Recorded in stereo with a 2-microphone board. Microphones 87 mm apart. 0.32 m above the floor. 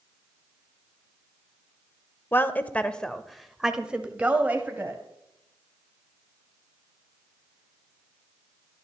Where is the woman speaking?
25° left (ahead or behind), 0.9 m; by 5.0 s 25° right (ahead or behind), 1.5 m.